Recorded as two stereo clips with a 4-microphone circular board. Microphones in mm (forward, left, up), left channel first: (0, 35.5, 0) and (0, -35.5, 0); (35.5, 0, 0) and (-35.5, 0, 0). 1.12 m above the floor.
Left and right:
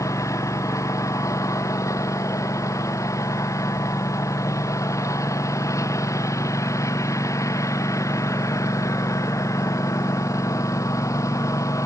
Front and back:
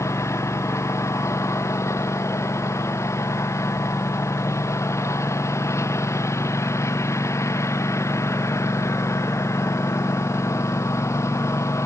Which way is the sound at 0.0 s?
45° left.